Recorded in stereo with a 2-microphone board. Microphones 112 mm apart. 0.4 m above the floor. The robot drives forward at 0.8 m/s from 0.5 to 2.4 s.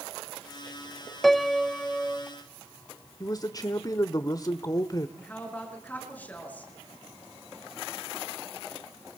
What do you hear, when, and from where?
1.2 s a piano: centre (ahead or behind), 0.5 m
3.2 s a man speaking: 35° left (ahead or behind), 1.0 m
5.2 s a woman speaking: 15° left (ahead or behind), 6 m